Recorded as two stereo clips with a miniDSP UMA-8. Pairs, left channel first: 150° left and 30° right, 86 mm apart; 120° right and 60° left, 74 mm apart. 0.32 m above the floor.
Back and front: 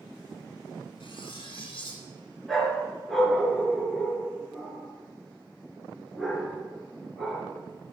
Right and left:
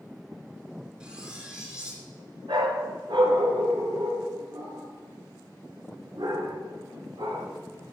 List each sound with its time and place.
1.0 s cutlery clinking: 140° left, 3 m
2.5 s a dog barking: 60° left, 1.9 m